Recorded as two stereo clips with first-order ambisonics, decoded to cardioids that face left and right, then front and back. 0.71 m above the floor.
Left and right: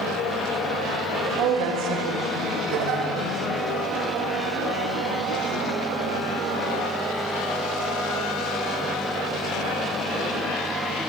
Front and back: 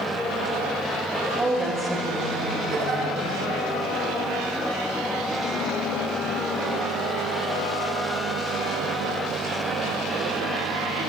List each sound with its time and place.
1.4 s a woman speaking: 95° right, 3 m
2.7 s a giggle: 115° right, 4.5 m